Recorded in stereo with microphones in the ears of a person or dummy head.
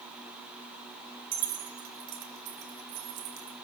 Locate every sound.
1.3 s keys jangling: 55° right (ahead or behind), 4.5 m; by 3.5 s 70° right (ahead or behind), 5.5 m